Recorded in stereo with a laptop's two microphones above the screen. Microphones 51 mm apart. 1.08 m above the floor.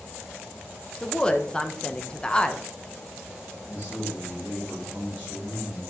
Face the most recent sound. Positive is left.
turn(degrees=-30)  # may be behind; listen again after turning